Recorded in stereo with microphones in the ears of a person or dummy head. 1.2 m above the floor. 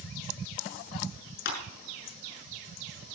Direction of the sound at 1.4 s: 65° left (ahead or behind).